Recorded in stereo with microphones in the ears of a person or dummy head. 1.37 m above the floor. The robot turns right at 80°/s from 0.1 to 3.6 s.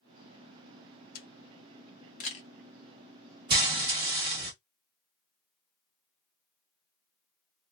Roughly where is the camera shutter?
Left.